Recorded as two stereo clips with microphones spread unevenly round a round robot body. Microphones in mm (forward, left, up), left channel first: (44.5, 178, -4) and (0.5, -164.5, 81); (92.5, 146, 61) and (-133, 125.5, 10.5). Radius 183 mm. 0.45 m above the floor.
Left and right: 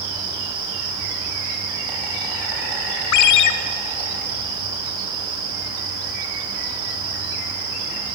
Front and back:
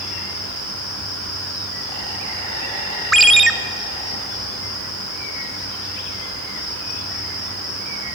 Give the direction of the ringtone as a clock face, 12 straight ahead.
9 o'clock.